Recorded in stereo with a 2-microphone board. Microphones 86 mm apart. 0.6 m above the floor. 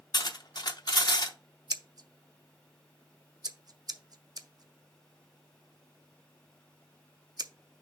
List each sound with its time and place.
0.1 s cutlery clinking: 55° left (ahead or behind), 0.7 m
1.7 s scissors: 50° right (ahead or behind), 0.5 m